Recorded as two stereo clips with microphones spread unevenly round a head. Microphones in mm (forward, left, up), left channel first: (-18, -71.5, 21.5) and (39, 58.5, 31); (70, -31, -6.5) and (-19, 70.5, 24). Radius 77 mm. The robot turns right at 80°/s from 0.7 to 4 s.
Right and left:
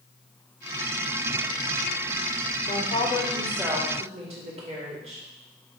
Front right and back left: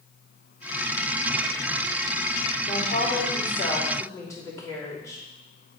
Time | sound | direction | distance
2.6 | a woman speaking | 90° right | 3 m